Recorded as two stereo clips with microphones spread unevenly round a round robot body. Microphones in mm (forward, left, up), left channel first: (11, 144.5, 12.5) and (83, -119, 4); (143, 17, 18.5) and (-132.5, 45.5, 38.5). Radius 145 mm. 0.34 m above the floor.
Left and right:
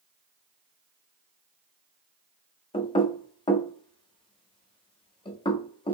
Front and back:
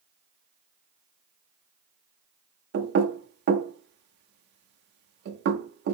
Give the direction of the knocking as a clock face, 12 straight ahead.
6 o'clock.